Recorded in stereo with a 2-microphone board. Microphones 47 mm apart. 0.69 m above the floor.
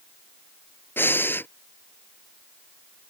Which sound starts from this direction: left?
Breathing, at 1.0 s.